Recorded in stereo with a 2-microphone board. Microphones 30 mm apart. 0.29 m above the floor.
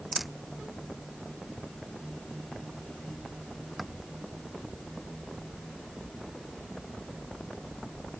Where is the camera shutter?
5° right (ahead or behind).